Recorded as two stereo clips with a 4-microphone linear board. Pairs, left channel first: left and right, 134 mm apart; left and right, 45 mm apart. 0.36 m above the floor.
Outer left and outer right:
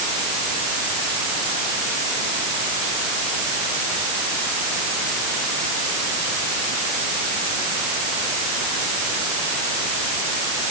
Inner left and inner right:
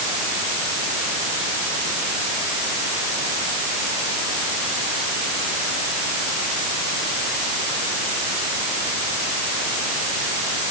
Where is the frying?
I don't hear frying.